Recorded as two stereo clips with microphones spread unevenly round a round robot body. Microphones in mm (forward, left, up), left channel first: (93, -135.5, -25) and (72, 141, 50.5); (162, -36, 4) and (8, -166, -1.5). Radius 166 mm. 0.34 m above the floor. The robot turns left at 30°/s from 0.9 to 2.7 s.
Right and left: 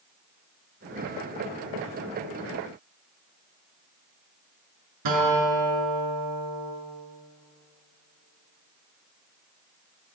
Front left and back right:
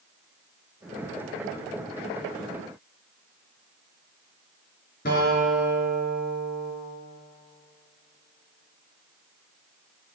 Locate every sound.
5.0 s a guitar: 105° left, 4.5 m